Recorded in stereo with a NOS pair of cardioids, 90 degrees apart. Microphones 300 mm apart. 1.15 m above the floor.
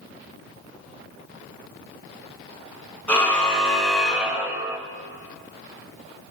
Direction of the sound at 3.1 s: 5° left.